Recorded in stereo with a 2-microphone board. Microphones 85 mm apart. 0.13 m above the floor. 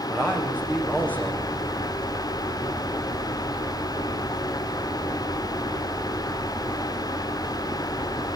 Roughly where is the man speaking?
Centre.